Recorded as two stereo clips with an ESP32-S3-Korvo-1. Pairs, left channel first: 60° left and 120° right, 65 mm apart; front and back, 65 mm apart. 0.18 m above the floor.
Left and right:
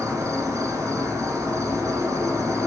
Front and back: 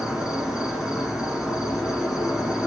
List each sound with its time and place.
0.0 s an insect: 100° right, 1.0 m